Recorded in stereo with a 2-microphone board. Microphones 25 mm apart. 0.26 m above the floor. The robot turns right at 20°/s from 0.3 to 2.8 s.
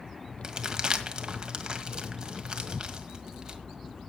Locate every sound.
0.4 s crumpling: 30° right (ahead or behind), 1.6 m